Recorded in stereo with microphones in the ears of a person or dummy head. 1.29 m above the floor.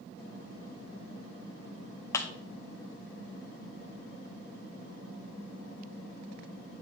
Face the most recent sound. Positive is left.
turn(degrees=20)  # may be behind; listen again after turning